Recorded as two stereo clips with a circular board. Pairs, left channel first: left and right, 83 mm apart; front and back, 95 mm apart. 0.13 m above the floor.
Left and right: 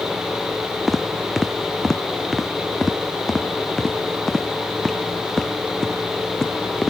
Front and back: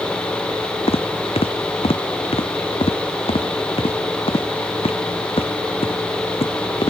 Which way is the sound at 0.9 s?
Straight ahead.